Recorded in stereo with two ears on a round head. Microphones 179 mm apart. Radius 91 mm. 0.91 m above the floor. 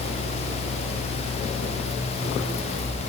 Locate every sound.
Only background noise.